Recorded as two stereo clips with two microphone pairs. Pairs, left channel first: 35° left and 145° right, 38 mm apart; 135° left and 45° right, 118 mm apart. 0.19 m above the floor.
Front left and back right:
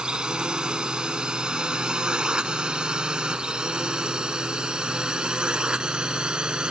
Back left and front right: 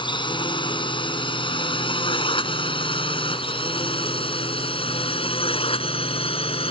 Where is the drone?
155° left.